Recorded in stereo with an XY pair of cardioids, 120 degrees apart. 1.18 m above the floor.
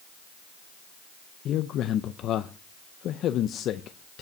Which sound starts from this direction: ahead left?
A man speaking, at 1.4 s.